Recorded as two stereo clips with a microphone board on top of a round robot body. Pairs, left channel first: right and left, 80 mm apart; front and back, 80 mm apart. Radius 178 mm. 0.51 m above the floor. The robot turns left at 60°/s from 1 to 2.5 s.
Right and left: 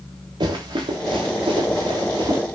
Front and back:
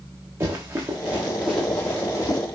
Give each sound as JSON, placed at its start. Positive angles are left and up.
{"t": 0.4, "sound": "running footsteps", "azimuth_deg": 120, "distance_m": 4.0}